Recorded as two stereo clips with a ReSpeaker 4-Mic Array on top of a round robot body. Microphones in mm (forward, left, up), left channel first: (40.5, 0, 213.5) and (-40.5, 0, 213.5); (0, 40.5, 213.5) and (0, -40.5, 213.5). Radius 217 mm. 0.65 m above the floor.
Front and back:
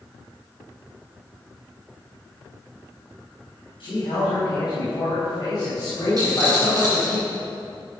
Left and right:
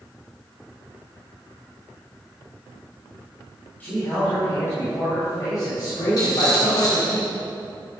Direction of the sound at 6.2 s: 135° left.